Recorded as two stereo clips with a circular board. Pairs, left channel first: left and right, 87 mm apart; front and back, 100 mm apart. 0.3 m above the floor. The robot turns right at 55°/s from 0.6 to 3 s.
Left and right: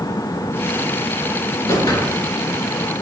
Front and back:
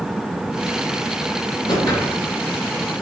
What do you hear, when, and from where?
1.7 s a whoosh: 40° left, 3.5 m; by 2.2 s 70° left, 3.5 m